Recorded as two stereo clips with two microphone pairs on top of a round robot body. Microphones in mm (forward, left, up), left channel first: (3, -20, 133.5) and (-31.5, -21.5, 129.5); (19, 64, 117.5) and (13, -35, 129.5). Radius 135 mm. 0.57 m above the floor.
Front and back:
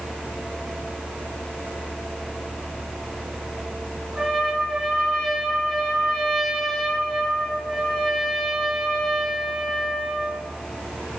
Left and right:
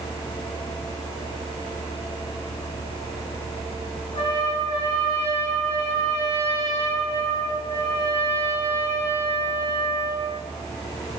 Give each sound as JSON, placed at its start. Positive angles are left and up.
{"t": 4.2, "sound": "a trumpet", "azimuth_deg": 105, "distance_m": 4.5}